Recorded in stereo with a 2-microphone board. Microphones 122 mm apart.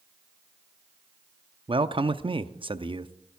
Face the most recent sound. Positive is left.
turn(degrees=-40)  # may be behind; listen again after turning